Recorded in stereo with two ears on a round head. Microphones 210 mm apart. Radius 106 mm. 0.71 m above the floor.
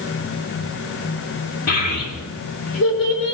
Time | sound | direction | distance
1.7 | a child speaking | 85° left | 6.5 m